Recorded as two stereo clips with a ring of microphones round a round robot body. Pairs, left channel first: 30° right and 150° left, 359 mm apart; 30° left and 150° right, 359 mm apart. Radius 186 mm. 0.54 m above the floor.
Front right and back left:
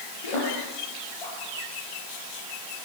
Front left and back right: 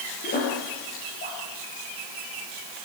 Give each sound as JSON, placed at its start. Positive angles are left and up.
{"t": 0.2, "sound": "a splash", "azimuth_deg": -35, "distance_m": 7.0}